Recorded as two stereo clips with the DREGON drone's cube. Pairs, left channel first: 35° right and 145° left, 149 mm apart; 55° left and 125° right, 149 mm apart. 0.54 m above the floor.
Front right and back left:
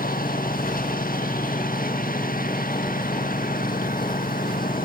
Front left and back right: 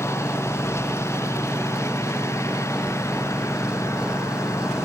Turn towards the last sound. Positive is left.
turn(degrees=-15)